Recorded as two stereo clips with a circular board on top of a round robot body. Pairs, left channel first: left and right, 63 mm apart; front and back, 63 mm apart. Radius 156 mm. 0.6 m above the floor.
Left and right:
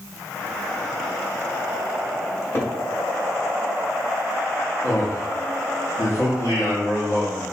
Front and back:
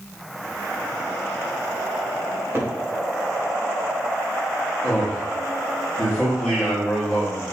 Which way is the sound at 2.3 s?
135° left.